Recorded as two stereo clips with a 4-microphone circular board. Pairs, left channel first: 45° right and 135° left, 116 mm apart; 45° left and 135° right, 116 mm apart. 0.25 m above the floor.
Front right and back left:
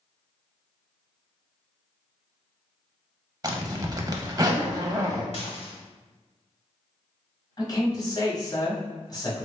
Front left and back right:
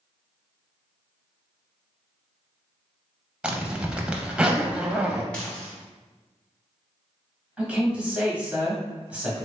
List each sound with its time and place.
3.4 s a zipper: 150° left, 0.5 m
5.3 s dishes clattering: 35° right, 1.2 m
7.6 s a man speaking: 60° right, 1.2 m